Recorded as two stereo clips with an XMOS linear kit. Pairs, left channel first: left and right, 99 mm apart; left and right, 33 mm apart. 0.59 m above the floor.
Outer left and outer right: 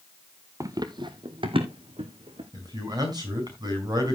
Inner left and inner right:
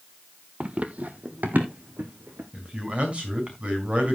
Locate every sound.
0.6 s running footsteps: 35° right (ahead or behind), 0.8 m; by 2.4 s 70° right (ahead or behind), 2.5 m
2.5 s a man speaking: 45° right (ahead or behind), 5 m